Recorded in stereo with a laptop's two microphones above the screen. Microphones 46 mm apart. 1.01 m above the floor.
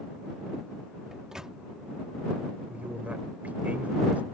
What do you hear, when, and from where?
1.1 s a microwave: 15° right (ahead or behind)
2.7 s a man speaking: 35° right (ahead or behind)